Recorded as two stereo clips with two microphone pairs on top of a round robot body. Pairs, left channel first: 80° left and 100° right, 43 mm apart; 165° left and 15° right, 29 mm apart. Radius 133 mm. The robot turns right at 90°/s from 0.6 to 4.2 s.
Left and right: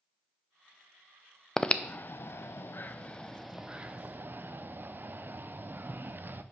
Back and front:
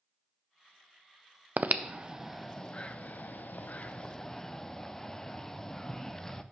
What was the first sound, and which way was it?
Breathing, 5° left.